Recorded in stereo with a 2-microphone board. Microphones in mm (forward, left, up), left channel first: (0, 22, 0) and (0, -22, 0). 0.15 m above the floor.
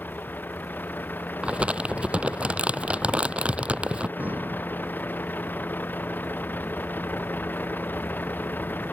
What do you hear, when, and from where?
0.0 s a vehicle: 45° left (ahead or behind)
1.4 s crumpling: 25° right (ahead or behind)
4.2 s breathing: 40° right (ahead or behind)